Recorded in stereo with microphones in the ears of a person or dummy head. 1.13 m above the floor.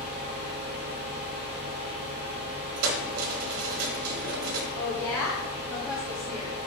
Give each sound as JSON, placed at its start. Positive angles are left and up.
{"t": 0.0, "sound": "a fan", "side_deg": -45, "distance_m": 1.2}
{"t": 2.8, "sound": "keys jangling", "side_deg": -75, "distance_m": 1.1}
{"t": 4.8, "sound": "a woman speaking", "side_deg": 15, "distance_m": 2.5}